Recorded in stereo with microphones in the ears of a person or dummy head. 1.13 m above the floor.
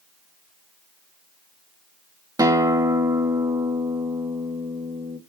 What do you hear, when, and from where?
2.4 s a guitar: 25° right (ahead or behind), 1.9 m